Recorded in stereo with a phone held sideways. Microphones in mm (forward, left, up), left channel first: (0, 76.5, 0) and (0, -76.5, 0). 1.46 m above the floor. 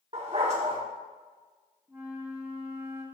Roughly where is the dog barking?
Right.